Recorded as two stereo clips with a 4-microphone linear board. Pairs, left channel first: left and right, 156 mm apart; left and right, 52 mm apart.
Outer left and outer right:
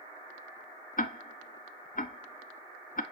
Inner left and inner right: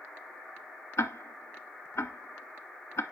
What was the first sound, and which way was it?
Ticking, 60° left (ahead or behind).